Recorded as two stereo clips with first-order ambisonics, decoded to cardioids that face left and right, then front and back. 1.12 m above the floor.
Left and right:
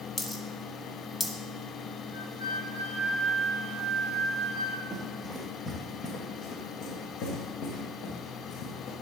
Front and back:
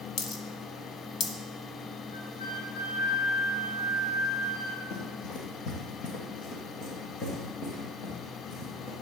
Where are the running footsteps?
5° right, 2.0 m; by 8.9 s 65° left, 4.5 m.